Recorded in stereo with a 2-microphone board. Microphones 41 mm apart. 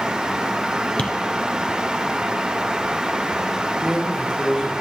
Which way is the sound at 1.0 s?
25° left (ahead or behind).